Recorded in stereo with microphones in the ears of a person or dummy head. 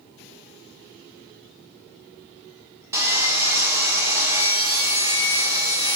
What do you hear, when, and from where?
2.9 s sawing: 15° right (ahead or behind), 1.5 m